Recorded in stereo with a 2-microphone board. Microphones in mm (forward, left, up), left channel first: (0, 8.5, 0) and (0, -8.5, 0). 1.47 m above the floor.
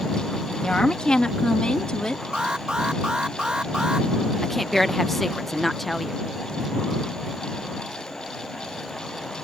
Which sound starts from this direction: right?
An alarm, at 2.3 s.